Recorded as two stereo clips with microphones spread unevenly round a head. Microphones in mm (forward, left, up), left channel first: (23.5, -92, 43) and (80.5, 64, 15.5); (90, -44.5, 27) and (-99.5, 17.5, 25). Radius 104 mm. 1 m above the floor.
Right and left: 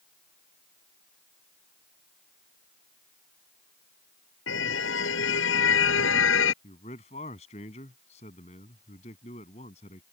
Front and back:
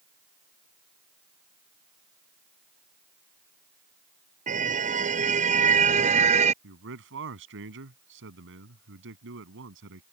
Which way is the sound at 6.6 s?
170° right.